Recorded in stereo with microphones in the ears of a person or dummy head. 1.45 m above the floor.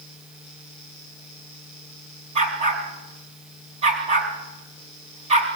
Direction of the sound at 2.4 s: 35° right (ahead or behind).